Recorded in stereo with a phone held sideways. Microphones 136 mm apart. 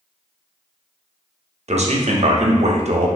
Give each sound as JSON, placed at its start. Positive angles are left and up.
{"t": 1.7, "sound": "a man speaking", "side_deg": -55, "distance_m": 0.6}